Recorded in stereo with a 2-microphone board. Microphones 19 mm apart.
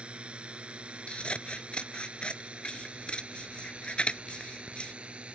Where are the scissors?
50° left (ahead or behind).